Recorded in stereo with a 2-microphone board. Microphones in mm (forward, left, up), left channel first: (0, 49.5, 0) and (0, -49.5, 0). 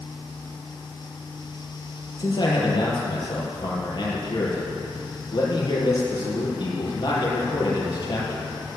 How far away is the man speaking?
About 5 m.